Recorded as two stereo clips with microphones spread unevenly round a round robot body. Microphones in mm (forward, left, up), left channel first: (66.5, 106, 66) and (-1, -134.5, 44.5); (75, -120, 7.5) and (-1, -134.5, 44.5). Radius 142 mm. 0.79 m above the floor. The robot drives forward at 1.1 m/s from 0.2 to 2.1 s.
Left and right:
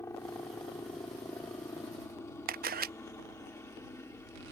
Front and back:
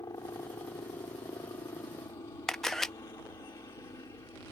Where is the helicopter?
5° right.